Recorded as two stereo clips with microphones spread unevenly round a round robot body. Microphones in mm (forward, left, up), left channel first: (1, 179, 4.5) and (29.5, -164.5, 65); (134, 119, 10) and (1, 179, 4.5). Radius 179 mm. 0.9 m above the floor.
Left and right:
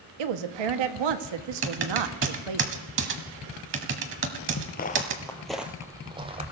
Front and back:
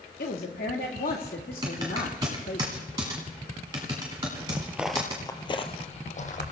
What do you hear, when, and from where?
0.2 s a woman speaking: 75° right, 1.3 m
1.6 s typing on a keyboard: 135° right, 1.3 m
4.5 s footsteps: 125° left, 0.9 m; by 6.5 s 20° right, 1.8 m